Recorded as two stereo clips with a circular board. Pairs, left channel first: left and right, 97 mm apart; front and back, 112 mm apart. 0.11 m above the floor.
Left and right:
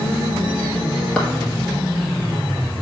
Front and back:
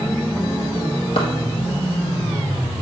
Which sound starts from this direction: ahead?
A clap, at 1.2 s.